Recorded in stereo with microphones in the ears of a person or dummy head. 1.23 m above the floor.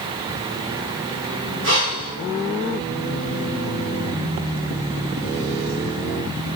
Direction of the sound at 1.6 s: 65° right (ahead or behind).